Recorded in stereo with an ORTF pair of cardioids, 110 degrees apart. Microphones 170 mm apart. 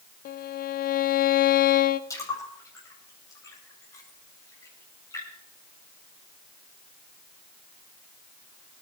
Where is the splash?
20° left, 9 m.